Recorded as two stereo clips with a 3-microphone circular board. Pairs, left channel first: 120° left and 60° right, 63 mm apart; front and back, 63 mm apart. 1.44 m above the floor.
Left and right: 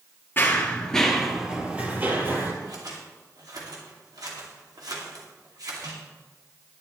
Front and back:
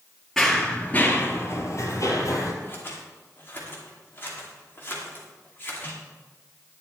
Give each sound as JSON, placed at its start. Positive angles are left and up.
{"t": 0.4, "sound": "running footsteps", "azimuth_deg": 85, "distance_m": 1.9}
{"t": 2.6, "sound": "scissors", "azimuth_deg": -55, "distance_m": 2.5}